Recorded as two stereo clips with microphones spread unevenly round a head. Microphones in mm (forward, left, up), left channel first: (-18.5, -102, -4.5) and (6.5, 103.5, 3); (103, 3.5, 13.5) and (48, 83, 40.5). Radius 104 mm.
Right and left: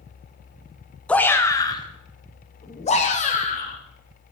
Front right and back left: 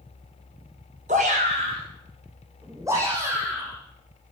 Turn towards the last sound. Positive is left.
turn(degrees=-155)